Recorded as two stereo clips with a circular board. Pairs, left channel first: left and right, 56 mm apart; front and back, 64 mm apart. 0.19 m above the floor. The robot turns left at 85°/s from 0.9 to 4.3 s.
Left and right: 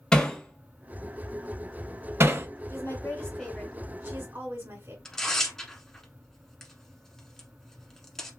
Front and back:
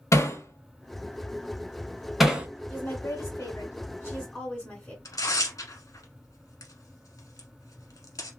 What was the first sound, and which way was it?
Hammering, 15° left.